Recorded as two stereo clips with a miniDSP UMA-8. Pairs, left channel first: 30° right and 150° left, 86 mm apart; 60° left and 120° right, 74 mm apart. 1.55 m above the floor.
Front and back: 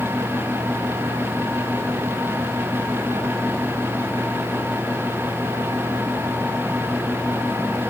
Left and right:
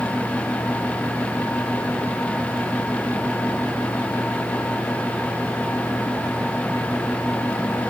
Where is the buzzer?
No buzzer in this recording.